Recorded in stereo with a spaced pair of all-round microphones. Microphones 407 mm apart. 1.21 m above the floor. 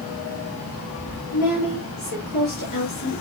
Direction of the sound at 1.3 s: 60° left (ahead or behind).